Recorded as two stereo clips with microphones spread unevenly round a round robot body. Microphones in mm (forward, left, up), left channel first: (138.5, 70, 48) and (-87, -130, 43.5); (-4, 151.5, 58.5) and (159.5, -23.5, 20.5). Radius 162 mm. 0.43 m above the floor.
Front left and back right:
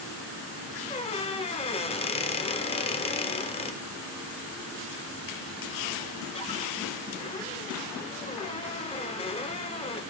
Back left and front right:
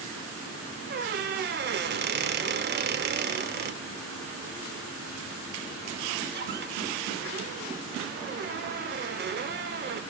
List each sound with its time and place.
0.9 s a squeak: 25° right, 0.8 m